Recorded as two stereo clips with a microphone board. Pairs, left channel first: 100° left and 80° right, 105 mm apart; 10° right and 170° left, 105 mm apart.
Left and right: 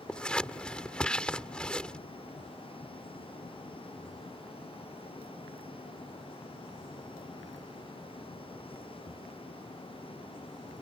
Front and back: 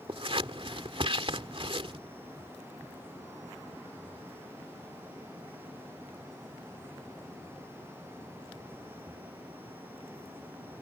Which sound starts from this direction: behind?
Scissors, at 0.1 s.